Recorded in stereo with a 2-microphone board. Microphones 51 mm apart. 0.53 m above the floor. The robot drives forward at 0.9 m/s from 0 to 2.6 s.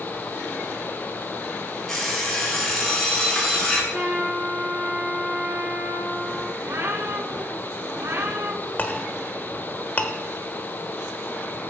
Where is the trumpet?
30° right (ahead or behind), 5 m.